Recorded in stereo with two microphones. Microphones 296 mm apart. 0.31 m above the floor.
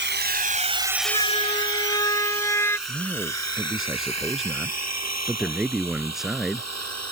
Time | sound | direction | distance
0.0 | a drone | 40° right (ahead or behind) | ?
1.1 | a siren | 20° left (ahead or behind) | ?
2.9 | a man speaking | centre (ahead or behind) | ?